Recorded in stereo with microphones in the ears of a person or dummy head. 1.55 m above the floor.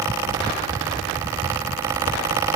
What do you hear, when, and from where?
Only background noise.